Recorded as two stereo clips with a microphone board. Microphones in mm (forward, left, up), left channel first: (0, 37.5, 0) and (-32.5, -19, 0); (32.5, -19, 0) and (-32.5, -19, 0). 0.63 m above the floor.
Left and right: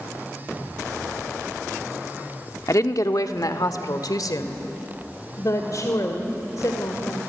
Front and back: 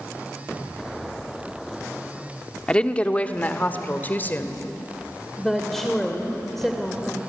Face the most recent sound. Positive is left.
turn(degrees=85)